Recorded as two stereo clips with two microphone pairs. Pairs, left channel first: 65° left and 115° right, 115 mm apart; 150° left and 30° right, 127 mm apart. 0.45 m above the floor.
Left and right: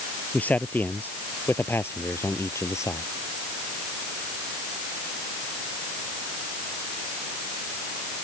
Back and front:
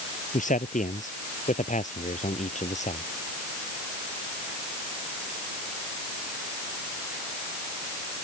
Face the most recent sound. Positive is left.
turn(degrees=125)